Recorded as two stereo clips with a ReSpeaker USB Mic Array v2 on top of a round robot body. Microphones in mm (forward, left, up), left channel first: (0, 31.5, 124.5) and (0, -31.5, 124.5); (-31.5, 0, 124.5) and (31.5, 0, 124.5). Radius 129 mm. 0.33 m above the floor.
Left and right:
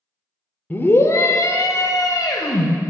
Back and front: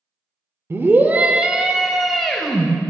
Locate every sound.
0.7 s a scream: 40° left, 1.2 m; by 2.7 s 100° left, 2.5 m